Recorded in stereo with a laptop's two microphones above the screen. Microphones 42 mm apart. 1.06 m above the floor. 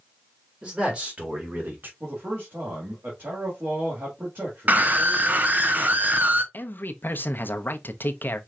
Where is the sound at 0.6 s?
25° right (ahead or behind), 1.9 m; by 1.9 s 55° right (ahead or behind), 1.5 m.